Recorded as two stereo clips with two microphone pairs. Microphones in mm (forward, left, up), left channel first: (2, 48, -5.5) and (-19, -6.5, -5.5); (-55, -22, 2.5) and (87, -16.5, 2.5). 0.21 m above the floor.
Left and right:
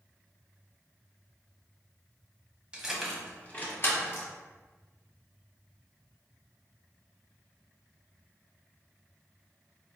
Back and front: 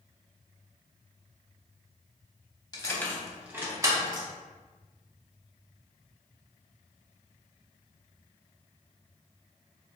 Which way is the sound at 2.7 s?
170° right.